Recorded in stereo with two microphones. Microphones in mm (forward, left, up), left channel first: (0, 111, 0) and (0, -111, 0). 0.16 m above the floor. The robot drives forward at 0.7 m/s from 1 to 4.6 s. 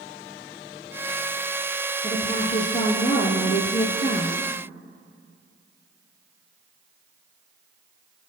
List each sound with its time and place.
2.0 s a woman speaking: 25° left (ahead or behind), 3.5 m; by 4.5 s 45° left (ahead or behind), 2 m